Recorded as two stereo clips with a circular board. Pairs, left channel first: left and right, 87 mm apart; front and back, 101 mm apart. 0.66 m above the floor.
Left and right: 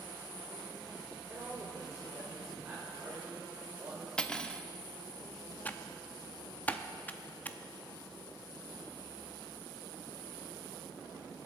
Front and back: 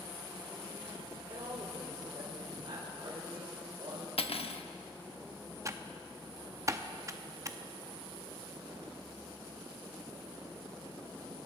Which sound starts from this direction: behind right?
A woman speaking, at 1.3 s.